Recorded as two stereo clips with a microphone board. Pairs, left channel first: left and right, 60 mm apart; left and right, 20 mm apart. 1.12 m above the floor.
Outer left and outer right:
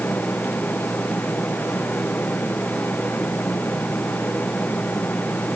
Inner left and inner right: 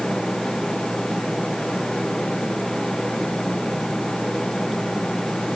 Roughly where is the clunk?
No clunk in this recording.